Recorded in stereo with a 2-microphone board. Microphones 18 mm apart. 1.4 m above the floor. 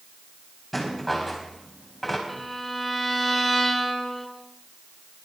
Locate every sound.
0.7 s a rattle: 10° left (ahead or behind), 4 m
2.3 s a violin: 10° left (ahead or behind), 2 m